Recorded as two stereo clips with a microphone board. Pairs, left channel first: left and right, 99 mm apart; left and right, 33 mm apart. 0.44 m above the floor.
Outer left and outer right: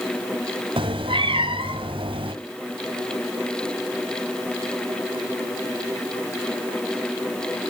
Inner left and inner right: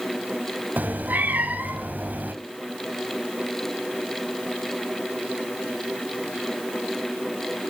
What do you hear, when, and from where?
0.8 s a cat meowing: 75° right (ahead or behind), 1.5 m